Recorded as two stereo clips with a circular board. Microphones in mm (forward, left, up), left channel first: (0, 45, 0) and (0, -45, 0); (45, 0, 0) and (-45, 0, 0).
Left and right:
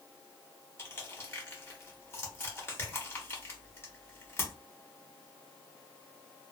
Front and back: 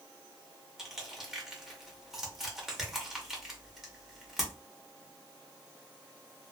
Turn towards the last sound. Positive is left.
turn(degrees=100)